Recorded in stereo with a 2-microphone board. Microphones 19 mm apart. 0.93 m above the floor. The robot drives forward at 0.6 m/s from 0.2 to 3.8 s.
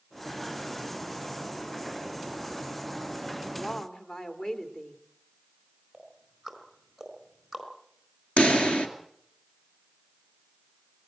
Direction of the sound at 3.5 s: 50° left (ahead or behind).